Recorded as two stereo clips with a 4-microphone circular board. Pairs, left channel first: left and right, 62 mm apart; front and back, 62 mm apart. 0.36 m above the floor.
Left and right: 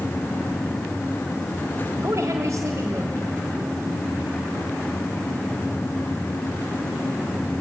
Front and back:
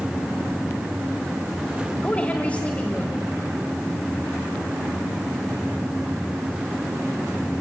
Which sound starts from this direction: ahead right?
A woman speaking, at 2.0 s.